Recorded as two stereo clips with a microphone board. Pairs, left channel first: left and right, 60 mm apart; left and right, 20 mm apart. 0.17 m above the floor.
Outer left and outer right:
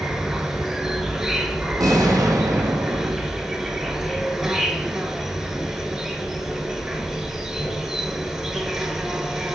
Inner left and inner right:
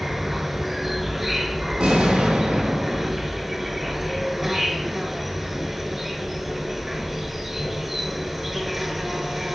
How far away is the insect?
About 1.0 m.